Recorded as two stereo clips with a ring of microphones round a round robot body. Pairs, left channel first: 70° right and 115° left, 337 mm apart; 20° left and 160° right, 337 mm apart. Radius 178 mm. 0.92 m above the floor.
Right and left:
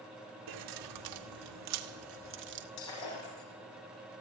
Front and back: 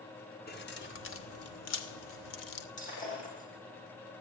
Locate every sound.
0.5 s keys jangling: 85° left, 2 m; by 2.7 s 50° left, 1.9 m
2.8 s breaking glass: 45° right, 9.5 m